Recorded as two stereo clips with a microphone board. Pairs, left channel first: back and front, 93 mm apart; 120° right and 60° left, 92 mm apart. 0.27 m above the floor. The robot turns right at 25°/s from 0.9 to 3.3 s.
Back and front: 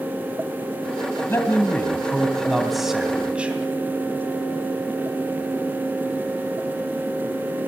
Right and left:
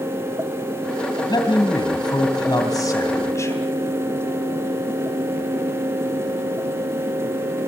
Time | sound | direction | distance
1.3 | a man speaking | 125° right | 2 m